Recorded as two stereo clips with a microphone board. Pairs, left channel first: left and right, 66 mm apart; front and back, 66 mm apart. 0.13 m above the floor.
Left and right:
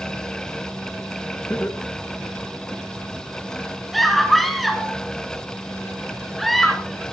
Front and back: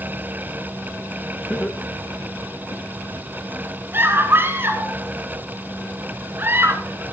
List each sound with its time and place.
1.5 s laughter: 75° left, 1.5 m; by 2.8 s 20° left, 2.5 m
3.9 s a scream: 175° left, 1.7 m